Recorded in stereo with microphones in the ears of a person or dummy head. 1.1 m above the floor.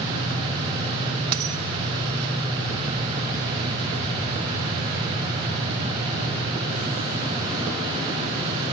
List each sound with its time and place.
1.3 s a dropped coin: 55° right (ahead or behind), 0.9 m